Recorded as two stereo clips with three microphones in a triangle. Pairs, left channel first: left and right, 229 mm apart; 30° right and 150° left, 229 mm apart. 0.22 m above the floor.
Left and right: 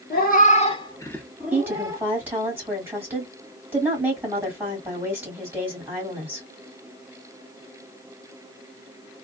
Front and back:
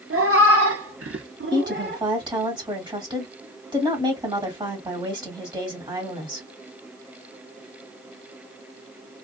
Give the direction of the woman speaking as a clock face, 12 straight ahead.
5 o'clock.